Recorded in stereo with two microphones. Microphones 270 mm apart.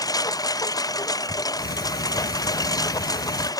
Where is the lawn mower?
15° left (ahead or behind).